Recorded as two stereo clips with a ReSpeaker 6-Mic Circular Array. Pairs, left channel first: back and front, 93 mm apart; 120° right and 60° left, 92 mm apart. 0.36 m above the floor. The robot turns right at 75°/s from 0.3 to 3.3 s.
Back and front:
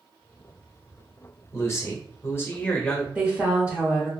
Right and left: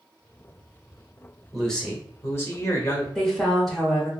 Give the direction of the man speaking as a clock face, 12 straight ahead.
7 o'clock.